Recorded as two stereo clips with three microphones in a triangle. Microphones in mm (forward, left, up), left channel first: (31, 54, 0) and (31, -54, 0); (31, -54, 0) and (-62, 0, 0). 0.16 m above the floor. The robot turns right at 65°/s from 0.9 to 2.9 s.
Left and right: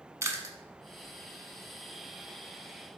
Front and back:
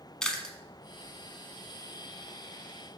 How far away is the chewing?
About 0.6 m.